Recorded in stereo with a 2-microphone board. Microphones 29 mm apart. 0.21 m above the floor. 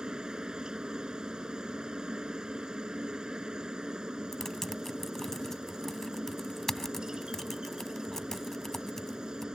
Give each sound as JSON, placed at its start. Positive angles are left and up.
{"t": 0.0, "sound": "a helicopter", "side_deg": -25}
{"t": 4.3, "sound": "typing on a keyboard", "side_deg": 15}